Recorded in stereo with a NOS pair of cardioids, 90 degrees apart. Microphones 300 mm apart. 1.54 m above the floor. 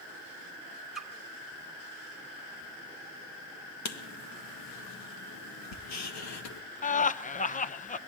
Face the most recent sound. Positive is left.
turn(degrees=25)